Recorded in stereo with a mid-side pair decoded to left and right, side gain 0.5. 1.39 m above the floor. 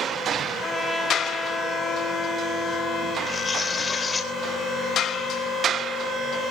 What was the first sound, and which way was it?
A trumpet, 5° left.